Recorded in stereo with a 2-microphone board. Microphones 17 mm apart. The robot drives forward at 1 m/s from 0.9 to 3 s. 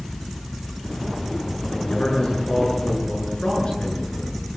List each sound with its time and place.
1.7 s a man speaking: 80° left, 8.5 m